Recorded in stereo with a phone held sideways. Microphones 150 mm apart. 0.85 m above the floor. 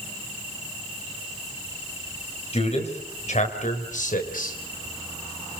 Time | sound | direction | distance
2.5 | a man speaking | 45° left (ahead or behind) | 5.5 m